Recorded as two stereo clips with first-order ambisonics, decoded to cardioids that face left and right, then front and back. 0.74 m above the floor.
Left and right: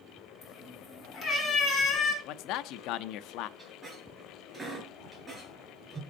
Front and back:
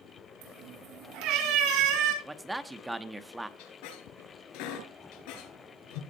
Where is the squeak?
5° right, 5 m.